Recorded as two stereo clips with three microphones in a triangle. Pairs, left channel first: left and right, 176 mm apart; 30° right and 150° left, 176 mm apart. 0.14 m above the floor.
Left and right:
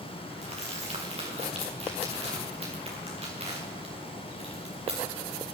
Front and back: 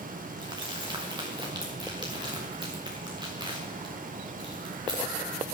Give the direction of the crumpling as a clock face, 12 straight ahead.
5 o'clock.